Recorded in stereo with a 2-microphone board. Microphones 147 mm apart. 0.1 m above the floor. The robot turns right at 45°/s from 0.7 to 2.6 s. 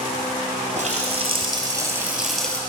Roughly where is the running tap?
Right.